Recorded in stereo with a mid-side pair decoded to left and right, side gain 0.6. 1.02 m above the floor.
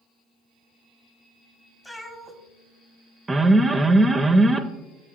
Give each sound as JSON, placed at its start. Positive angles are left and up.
{"t": 1.8, "sound": "a cat meowing", "azimuth_deg": 10, "distance_m": 1.1}
{"t": 3.3, "sound": "an alarm", "azimuth_deg": -15, "distance_m": 0.6}